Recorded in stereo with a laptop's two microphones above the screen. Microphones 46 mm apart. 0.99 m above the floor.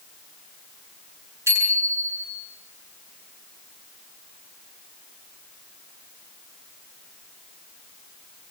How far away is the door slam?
No door slam in this recording.